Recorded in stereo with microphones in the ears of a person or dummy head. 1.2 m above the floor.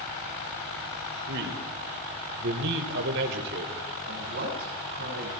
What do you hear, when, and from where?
1.3 s a man speaking: 65° right (ahead or behind), 3.5 m
4.1 s a woman speaking: 60° right (ahead or behind), 7 m